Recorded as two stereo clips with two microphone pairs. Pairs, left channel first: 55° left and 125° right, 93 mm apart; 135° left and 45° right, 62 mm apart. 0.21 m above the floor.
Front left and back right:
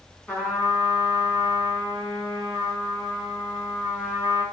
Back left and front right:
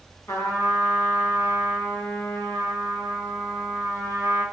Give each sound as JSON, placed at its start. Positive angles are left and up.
{"t": 0.3, "sound": "a trumpet", "azimuth_deg": 115, "distance_m": 2.0}